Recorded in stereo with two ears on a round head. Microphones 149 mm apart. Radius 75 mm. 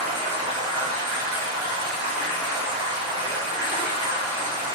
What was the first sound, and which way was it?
Running water, 30° right (ahead or behind).